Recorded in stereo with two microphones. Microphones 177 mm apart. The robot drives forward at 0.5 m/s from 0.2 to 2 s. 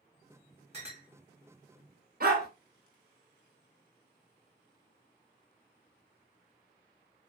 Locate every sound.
0.7 s a clink: 35° right (ahead or behind), 1.3 m
2.2 s a dog barking: 60° right (ahead or behind), 1.2 m